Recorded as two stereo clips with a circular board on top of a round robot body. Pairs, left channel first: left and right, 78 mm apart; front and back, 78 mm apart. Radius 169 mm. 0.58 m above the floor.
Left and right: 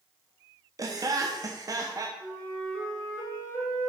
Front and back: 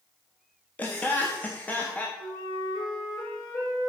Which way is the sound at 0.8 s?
65° right.